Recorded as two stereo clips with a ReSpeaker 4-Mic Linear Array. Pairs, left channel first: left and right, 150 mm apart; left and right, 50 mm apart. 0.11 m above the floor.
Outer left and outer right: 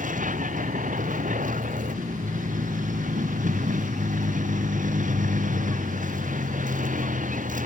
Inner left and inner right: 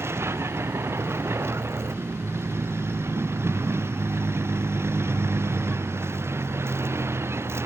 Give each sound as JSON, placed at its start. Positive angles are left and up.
{"t": 0.0, "sound": "a vehicle", "side_deg": -60}